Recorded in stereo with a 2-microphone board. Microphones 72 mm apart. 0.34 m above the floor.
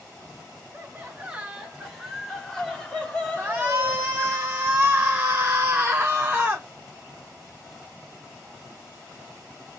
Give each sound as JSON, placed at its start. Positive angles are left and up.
{"t": 0.7, "sound": "laughter", "side_deg": -25, "distance_m": 1.5}
{"t": 3.4, "sound": "a shout", "side_deg": -30, "distance_m": 1.0}